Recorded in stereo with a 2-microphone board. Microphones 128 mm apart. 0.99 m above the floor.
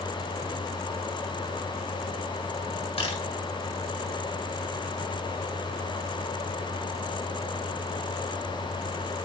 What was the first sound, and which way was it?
A camera shutter, 50° left (ahead or behind).